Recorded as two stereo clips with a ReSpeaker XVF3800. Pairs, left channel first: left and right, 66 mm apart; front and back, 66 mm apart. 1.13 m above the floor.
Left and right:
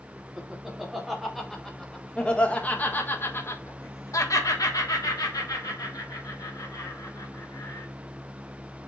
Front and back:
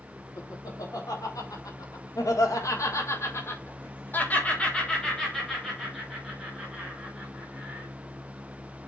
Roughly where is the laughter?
Ahead.